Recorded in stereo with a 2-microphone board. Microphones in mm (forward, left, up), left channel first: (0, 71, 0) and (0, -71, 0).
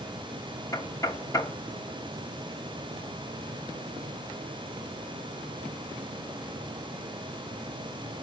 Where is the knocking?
20° left (ahead or behind), 1.1 m.